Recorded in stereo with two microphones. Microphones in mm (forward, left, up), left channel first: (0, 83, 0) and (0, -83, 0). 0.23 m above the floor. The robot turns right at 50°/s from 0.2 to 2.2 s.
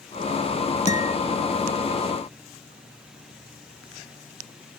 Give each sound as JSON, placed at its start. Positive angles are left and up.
{"t": 0.9, "sound": "a guitar", "side_deg": 45}